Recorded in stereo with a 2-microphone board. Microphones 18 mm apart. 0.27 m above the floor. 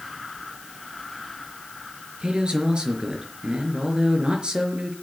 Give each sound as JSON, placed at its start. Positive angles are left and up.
{"t": 2.2, "sound": "a man speaking", "side_deg": -55, "distance_m": 4.0}